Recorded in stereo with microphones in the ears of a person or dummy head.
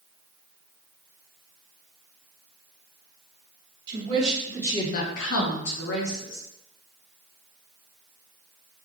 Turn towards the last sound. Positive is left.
turn(degrees=65)  # may be behind; listen again after turning